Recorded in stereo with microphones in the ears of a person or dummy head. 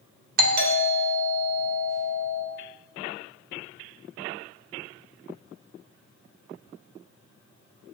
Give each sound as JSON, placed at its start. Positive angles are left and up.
{"t": 0.4, "sound": "a doorbell", "side_deg": -55, "distance_m": 1.3}